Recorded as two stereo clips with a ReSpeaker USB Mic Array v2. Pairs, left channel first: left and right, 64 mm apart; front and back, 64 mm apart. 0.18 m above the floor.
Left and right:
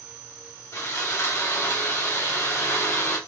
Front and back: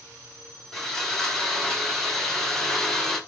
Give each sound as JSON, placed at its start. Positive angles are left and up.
{"t": 0.7, "sound": "sawing", "azimuth_deg": 80, "distance_m": 2.0}